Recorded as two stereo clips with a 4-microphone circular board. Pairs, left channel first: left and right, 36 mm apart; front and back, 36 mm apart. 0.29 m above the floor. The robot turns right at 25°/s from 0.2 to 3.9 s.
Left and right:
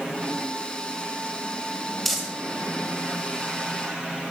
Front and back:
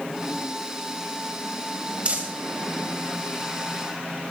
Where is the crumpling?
175° left, 1.7 m; by 2.3 s straight behind, 1.7 m.